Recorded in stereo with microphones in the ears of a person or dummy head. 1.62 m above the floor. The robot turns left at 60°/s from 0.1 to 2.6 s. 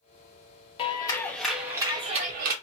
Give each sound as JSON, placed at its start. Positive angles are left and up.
{"t": 0.8, "sound": "a clap", "azimuth_deg": 40, "distance_m": 0.7}